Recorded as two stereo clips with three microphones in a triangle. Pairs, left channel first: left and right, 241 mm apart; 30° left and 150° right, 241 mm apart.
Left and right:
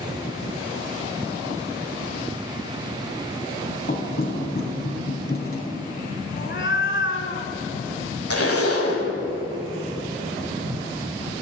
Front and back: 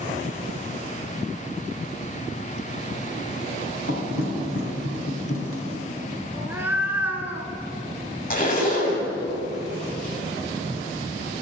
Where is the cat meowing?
130° left, 0.7 m.